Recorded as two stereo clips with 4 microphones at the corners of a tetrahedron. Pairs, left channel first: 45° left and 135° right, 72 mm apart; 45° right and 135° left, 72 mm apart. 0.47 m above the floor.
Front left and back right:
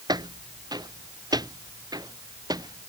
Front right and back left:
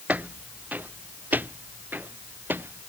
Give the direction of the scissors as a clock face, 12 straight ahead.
I don't hear scissors.